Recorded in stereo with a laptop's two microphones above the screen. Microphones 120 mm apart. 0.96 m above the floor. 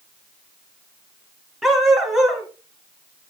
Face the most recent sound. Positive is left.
turn(degrees=0)  # may be behind; listen again after turning